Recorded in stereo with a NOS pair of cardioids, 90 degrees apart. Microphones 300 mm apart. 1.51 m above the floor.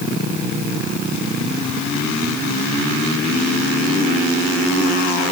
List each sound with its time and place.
Only background noise.